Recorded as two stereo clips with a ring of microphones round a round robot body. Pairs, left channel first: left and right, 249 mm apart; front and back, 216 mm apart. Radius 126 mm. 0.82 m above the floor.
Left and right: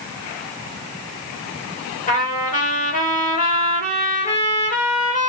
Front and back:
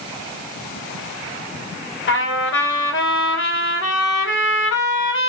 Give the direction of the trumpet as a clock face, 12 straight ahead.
11 o'clock.